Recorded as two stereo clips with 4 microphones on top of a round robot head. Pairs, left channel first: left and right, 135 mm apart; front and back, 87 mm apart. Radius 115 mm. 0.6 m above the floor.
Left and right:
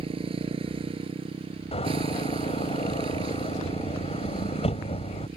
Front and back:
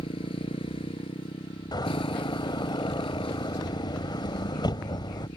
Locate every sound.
0.0 s a motorcycle: 40° right
1.7 s a door slam: 40° left